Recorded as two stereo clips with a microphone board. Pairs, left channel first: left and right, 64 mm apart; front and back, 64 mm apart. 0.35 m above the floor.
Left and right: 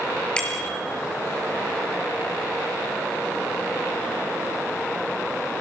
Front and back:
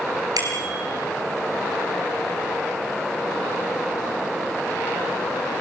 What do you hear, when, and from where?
0.4 s a bicycle bell: 170° left, 5 m